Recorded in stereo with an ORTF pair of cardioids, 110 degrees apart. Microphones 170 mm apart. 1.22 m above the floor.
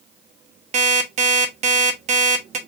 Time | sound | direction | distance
0.7 | an alarm clock | 45° right | 1.1 m